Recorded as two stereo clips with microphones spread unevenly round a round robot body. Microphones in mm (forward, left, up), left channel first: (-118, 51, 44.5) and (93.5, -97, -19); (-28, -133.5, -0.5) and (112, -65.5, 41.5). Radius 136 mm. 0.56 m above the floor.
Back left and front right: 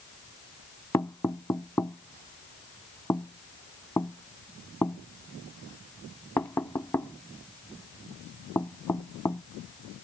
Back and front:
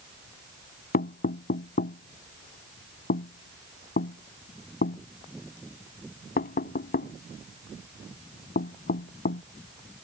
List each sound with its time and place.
0.9 s knocking: 135° right